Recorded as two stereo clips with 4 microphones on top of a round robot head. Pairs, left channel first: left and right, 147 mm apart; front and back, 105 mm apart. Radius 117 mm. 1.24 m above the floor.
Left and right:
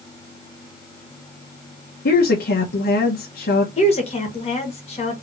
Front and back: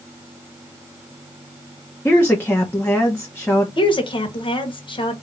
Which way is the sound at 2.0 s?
70° left.